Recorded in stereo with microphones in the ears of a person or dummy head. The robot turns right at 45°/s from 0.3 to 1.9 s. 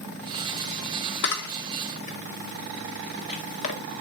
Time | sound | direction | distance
1.2 | a camera shutter | 65° left (ahead or behind) | 1.9 m